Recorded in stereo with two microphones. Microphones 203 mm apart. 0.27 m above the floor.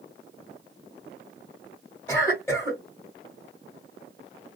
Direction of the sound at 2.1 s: 10° left (ahead or behind).